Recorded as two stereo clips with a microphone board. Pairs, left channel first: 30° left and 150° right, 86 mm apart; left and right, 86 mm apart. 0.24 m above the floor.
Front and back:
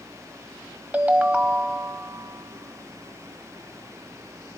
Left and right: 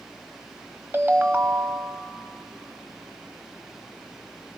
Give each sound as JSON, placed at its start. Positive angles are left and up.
{"t": 0.9, "sound": "a ringtone", "azimuth_deg": -100, "distance_m": 0.6}